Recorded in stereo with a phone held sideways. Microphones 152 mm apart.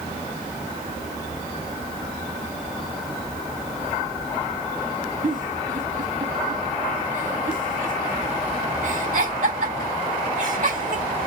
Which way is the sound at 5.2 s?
60° right (ahead or behind).